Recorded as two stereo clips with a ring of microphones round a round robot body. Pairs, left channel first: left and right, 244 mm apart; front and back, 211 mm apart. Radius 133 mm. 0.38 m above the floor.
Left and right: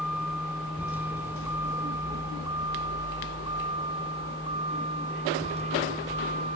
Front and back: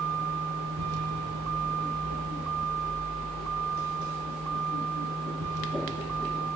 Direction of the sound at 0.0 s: 175° right.